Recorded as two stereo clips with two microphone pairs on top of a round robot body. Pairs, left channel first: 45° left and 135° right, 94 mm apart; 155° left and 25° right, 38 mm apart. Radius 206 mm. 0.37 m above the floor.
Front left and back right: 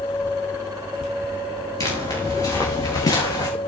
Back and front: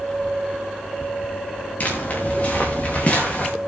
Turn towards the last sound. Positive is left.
turn(degrees=90)